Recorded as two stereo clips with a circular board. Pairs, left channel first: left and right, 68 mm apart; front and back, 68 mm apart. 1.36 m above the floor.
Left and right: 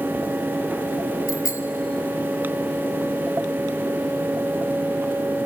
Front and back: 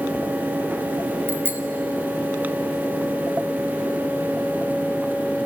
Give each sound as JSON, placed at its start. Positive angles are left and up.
{"t": 1.3, "sound": "a bicycle bell", "azimuth_deg": 120, "distance_m": 2.0}